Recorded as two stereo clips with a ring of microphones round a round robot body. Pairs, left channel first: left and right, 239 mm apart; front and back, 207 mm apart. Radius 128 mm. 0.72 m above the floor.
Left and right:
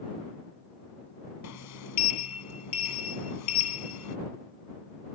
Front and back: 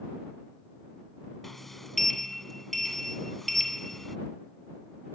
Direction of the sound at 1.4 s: 90° left.